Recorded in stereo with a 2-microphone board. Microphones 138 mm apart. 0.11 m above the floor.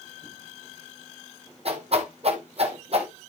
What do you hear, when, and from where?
1.6 s a whoosh: 55° right (ahead or behind), 1.5 m